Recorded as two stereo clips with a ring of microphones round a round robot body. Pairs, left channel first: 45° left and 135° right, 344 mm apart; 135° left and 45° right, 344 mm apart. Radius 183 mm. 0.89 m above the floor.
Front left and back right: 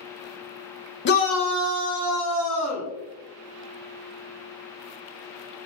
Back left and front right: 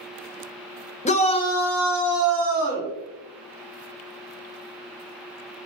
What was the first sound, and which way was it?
A shout, 75° left.